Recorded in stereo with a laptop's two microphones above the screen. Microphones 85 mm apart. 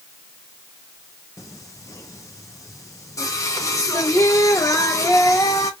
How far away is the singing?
About 0.8 m.